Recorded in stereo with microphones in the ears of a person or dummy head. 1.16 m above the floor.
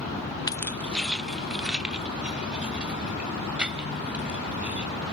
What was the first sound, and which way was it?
Keys jangling, 20° left (ahead or behind).